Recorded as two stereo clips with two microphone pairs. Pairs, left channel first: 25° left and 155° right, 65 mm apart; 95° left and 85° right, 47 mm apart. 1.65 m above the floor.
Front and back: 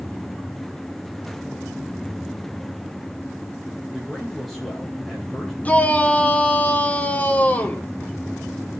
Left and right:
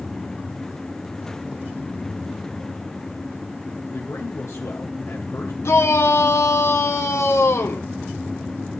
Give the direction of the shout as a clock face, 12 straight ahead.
9 o'clock.